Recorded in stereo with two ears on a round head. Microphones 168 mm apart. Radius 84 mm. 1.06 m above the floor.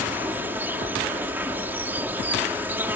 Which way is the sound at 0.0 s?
10° right (ahead or behind).